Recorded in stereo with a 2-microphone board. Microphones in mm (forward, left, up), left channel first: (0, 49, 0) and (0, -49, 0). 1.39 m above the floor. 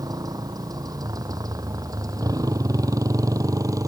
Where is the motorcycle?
40° right (ahead or behind); by 3.9 s 35° right (ahead or behind).